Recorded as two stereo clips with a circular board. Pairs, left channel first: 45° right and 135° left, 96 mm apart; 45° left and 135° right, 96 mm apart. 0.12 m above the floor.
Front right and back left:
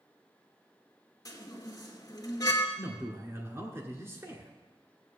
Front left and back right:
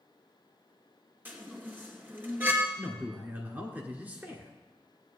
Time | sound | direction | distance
1.2 | a chime | 75° right | 1.9 m
2.8 | a man speaking | 170° left | 2.0 m